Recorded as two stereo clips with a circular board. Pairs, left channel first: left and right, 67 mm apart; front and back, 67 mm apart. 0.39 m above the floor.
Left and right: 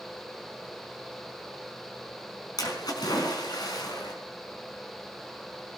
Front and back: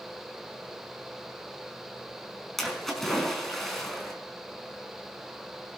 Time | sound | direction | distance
2.6 | a splash | 85° left | 5 m